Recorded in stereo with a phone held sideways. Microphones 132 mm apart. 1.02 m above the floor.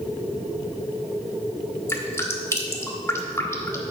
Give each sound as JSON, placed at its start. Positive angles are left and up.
{"t": 1.9, "sound": "dripping", "side_deg": 20, "distance_m": 1.6}